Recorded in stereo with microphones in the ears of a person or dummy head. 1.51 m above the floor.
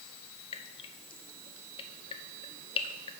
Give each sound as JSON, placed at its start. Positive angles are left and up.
{"t": 0.5, "sound": "dripping", "side_deg": 35, "distance_m": 0.8}